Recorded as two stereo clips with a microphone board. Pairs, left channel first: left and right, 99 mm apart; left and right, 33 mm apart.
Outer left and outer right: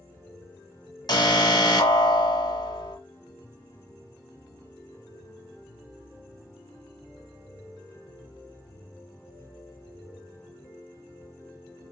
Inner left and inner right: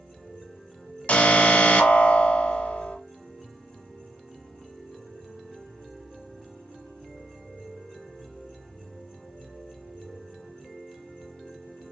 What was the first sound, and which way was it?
An alarm, 45° left (ahead or behind).